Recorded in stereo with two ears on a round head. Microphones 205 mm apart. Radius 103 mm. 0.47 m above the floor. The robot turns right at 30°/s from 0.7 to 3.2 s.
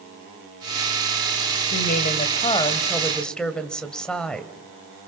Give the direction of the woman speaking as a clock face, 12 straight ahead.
8 o'clock.